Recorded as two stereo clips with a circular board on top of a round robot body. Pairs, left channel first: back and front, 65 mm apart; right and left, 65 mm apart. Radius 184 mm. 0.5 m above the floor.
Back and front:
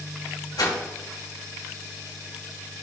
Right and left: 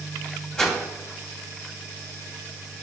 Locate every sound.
0.6 s a whoosh: 170° right, 2.5 m